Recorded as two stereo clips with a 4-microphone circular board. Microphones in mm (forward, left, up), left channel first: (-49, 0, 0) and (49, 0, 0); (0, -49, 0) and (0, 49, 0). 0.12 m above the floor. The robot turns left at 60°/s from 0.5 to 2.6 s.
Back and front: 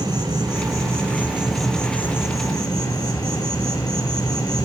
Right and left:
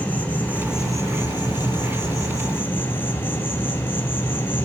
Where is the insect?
25° right, 2.0 m; by 4.7 s 150° right, 2.0 m.